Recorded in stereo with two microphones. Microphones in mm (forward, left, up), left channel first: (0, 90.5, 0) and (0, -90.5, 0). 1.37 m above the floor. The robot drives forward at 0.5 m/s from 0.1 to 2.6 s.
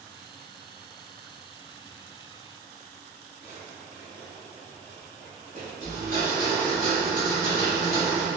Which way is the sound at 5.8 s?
50° right (ahead or behind).